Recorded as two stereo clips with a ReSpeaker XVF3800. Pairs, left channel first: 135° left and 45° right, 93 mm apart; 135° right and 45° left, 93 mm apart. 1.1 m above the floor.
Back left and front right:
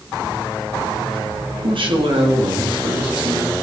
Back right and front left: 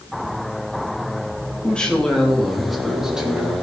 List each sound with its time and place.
1.6 s a woman speaking: 60° right, 2.5 m; by 3.5 s 35° right, 2.5 m